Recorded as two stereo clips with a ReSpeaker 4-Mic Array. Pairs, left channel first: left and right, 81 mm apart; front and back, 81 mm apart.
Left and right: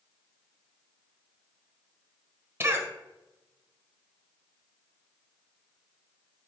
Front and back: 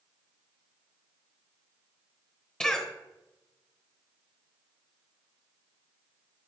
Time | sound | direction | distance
2.6 | a cough | 75° right | 1.0 m